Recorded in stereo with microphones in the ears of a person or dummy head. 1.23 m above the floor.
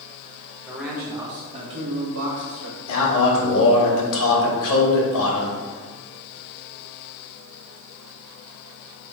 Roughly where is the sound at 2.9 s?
Left.